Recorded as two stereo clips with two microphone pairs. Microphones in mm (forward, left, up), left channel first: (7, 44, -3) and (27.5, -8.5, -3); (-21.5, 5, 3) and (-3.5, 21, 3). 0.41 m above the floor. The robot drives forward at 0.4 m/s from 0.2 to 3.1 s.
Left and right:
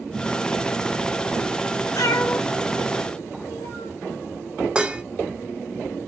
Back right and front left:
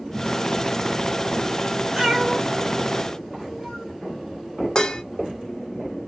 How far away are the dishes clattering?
About 0.6 m.